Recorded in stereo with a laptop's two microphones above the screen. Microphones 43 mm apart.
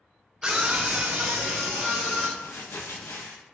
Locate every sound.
0.4 s a scream: 20° right (ahead or behind), 0.8 m; by 2.3 s 15° right (ahead or behind), 1.1 m
2.4 s crumpling: 55° left (ahead or behind), 0.7 m